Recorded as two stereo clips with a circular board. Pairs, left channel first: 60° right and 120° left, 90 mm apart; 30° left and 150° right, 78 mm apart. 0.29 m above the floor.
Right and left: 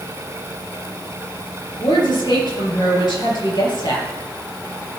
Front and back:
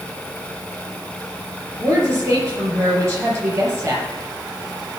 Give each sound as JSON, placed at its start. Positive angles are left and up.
{"t": 1.8, "sound": "a woman speaking", "azimuth_deg": -95, "distance_m": 5.5}